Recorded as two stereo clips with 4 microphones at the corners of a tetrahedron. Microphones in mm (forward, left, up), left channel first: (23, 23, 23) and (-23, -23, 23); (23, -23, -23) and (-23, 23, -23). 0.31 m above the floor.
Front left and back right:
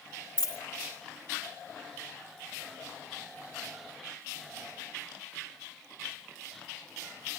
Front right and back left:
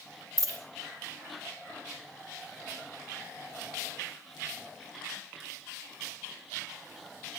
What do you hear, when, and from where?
0.4 s a dropped coin: 170° left, 1.8 m